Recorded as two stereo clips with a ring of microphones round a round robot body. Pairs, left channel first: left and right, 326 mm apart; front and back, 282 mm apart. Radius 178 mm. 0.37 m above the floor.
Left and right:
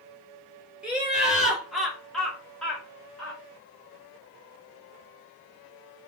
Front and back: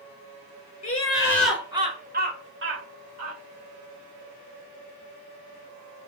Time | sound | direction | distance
0.8 | laughter | 5° right | 1.1 m